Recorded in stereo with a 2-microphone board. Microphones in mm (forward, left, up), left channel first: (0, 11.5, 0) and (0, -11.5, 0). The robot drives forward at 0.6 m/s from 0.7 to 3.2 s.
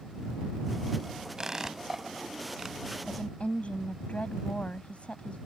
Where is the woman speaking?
60° left (ahead or behind); by 5.4 s 65° left (ahead or behind).